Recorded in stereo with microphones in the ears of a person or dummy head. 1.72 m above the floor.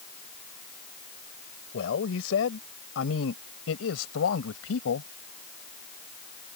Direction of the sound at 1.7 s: 70° left (ahead or behind).